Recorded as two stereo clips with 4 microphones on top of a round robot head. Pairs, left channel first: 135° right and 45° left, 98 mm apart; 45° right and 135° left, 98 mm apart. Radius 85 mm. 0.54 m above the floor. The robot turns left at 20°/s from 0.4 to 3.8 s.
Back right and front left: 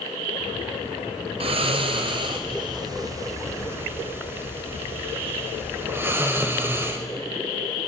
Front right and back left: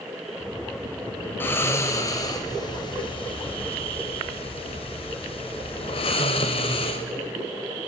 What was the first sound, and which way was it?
Snoring, 25° left.